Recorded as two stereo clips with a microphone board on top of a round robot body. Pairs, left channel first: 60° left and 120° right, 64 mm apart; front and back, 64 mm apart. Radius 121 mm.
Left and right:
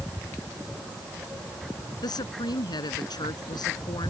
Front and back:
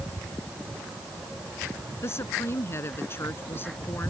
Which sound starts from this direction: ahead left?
A woman speaking, at 2.0 s.